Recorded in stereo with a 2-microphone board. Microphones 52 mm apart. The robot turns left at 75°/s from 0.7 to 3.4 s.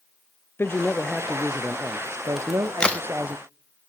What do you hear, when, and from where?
0.6 s a man speaking: 45° left, 0.5 m; by 3.4 s 150° right, 0.5 m
2.4 s a crack: 10° right (ahead or behind), 1.0 m; by 3.0 s 30° left (ahead or behind), 1.0 m